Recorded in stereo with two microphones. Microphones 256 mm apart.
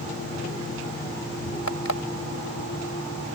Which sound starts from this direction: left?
An alarm clock, at 1.7 s.